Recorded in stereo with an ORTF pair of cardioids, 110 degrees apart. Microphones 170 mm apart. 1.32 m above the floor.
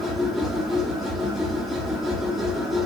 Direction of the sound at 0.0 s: Straight ahead.